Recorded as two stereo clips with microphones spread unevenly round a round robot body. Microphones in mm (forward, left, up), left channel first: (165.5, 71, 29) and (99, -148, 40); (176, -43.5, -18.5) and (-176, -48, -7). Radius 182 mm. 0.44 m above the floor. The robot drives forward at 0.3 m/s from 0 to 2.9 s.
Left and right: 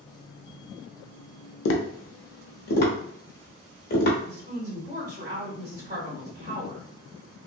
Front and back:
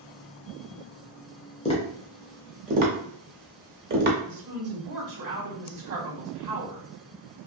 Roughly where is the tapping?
Left.